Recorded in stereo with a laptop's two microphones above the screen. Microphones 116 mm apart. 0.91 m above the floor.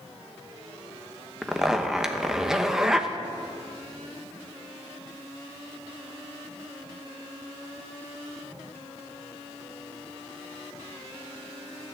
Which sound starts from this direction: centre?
A zipper, at 1.4 s.